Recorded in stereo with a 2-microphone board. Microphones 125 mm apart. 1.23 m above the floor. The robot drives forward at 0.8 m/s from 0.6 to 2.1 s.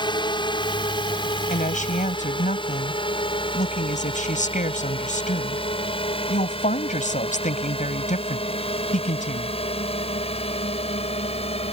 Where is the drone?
40° left (ahead or behind); by 11.7 s 55° left (ahead or behind).